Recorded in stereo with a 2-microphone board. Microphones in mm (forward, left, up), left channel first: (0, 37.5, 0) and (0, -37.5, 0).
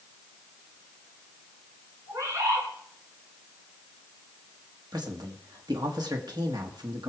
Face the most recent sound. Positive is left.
turn(degrees=-65)  # may be behind; listen again after turning